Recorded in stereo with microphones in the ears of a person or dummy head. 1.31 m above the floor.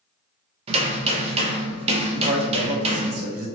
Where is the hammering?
40° right (ahead or behind), 0.6 m.